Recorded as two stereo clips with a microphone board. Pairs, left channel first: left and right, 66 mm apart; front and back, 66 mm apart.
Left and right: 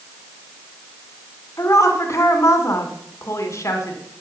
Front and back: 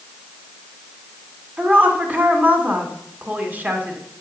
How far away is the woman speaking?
About 1.8 m.